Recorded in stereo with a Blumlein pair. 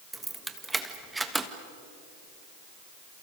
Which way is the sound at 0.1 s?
5° right.